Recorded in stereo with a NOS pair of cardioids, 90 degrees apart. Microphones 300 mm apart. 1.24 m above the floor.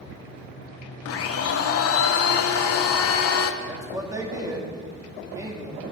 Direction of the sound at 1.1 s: 55° left.